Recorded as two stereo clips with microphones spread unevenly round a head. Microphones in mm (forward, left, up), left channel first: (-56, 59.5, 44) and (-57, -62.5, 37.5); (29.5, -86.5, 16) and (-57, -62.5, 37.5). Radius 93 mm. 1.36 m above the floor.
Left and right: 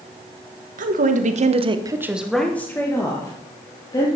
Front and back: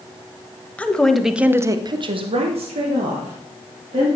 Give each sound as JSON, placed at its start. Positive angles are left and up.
{"t": 0.8, "sound": "a woman speaking", "azimuth_deg": -90, "distance_m": 1.4}